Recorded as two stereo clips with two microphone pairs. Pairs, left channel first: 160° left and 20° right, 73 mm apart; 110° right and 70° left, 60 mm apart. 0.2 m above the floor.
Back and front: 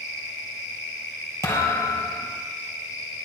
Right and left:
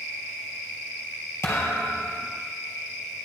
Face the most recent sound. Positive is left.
turn(degrees=-150)